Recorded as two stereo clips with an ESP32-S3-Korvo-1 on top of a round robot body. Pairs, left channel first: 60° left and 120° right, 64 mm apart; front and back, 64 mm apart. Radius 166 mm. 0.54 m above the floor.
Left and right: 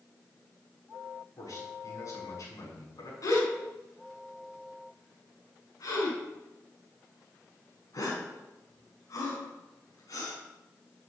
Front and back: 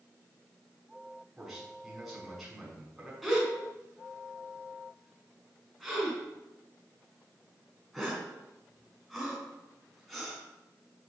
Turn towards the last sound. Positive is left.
turn(degrees=90)